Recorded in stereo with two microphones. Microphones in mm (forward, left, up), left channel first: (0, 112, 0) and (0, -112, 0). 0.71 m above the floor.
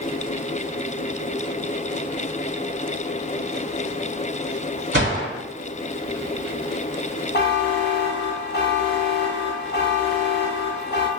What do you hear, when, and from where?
4.9 s a gunshot: 50° right (ahead or behind), 1.8 m
7.3 s a buzzer: 50° left (ahead or behind), 0.6 m